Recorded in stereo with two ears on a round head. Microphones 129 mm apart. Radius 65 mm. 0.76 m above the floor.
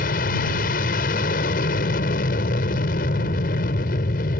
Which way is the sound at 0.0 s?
65° left (ahead or behind).